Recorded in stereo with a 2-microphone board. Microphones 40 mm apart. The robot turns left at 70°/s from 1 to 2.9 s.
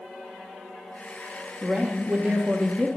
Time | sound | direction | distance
1.6 | a woman speaking | 40° right | 0.5 m